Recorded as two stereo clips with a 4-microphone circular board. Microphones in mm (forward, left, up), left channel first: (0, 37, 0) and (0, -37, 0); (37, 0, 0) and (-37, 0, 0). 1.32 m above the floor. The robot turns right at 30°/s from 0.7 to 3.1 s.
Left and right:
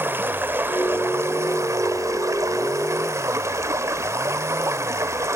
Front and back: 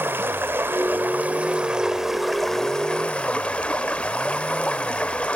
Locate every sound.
0.0 s running water: 140° right, 1.3 m; by 5.4 s 65° right, 1.3 m